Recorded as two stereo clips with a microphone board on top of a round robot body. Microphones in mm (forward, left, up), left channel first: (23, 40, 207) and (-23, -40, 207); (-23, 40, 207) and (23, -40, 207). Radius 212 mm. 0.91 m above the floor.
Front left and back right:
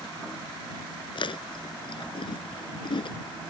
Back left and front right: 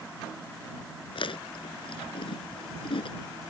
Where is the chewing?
90° left.